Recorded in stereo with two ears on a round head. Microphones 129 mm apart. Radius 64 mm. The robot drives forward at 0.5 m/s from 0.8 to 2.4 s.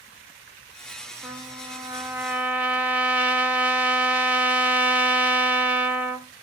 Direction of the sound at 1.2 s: 10° right (ahead or behind).